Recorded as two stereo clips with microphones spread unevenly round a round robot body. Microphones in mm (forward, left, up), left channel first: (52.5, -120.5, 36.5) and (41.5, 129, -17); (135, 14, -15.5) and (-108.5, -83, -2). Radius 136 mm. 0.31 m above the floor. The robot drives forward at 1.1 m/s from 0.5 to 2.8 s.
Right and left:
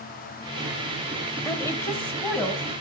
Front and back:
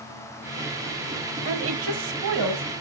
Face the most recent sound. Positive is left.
turn(degrees=180)